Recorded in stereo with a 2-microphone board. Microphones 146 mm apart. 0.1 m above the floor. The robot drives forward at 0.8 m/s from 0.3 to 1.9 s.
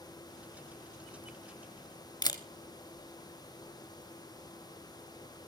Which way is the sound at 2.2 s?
30° left (ahead or behind).